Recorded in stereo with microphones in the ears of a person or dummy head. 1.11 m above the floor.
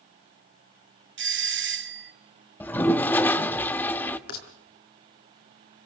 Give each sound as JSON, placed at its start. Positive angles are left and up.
{"t": 1.2, "sound": "a doorbell", "side_deg": -50, "distance_m": 1.0}
{"t": 2.6, "sound": "a toilet flushing", "side_deg": 15, "distance_m": 1.0}
{"t": 4.3, "sound": "a rattle", "side_deg": 65, "distance_m": 4.5}